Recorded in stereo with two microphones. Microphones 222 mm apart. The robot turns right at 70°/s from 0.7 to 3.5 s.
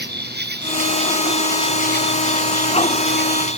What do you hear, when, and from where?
0.0 s an insect: 45° right; by 3.6 s 150° left